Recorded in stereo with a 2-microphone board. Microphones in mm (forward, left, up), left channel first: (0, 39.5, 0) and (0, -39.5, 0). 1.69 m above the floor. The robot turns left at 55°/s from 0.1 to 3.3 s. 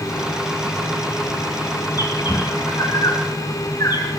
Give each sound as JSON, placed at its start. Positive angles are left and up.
{"t": 2.0, "sound": "a bird", "side_deg": 45, "distance_m": 3.0}